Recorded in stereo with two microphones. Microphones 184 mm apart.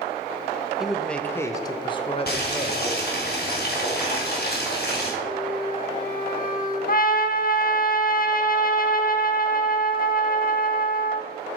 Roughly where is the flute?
Left.